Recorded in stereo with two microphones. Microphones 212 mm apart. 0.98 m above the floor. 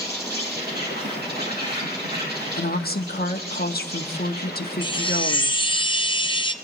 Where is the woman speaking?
45° left (ahead or behind), 1.2 m.